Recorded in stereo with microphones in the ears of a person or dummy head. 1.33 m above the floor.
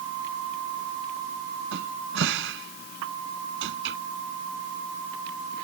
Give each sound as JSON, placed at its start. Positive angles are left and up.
{"t": 1.7, "sound": "a cupboard door", "side_deg": -70}